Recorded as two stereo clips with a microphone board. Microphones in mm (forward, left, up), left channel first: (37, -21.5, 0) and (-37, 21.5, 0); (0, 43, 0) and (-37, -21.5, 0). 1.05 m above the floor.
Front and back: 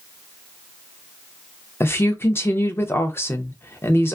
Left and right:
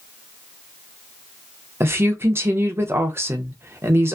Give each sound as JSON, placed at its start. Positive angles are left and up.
{"t": 1.8, "sound": "a woman speaking", "azimuth_deg": -80, "distance_m": 0.6}